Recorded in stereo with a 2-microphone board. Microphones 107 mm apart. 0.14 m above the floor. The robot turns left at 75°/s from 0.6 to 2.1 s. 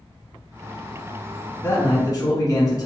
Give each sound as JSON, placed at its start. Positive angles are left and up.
{"t": 1.6, "sound": "a man speaking", "azimuth_deg": 135, "distance_m": 1.6}